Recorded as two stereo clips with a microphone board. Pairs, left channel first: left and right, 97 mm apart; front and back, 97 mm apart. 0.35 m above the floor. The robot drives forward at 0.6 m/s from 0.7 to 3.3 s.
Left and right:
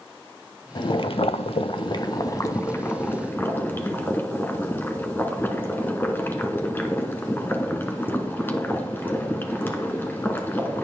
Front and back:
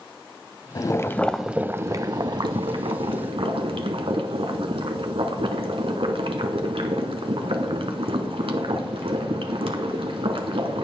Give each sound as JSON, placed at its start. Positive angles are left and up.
{"t": 0.8, "sound": "boiling", "azimuth_deg": 50, "distance_m": 0.6}